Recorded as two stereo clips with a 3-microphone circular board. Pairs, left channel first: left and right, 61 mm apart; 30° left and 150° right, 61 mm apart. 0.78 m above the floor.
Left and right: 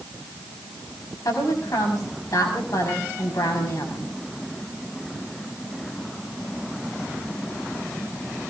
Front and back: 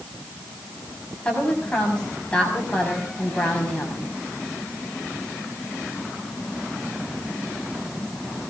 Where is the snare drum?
No snare drum in this recording.